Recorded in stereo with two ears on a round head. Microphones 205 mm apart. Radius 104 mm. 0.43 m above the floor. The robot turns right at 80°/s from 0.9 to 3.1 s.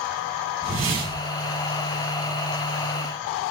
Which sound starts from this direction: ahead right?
A whoosh, at 0.6 s.